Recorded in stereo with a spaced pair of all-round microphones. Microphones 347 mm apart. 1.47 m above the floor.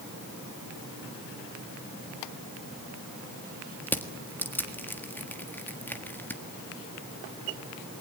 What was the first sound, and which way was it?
Crushing, 5° left (ahead or behind).